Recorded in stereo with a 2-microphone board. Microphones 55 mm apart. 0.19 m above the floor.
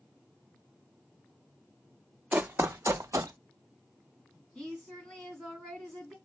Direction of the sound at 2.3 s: 30° right (ahead or behind).